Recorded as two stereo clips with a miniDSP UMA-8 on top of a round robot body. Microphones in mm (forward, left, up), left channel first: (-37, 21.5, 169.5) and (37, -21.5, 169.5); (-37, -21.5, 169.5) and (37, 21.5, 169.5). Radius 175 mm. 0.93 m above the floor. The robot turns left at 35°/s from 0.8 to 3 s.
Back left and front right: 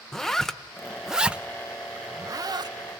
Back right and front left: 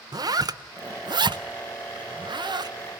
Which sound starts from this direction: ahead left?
A zipper, at 0.1 s.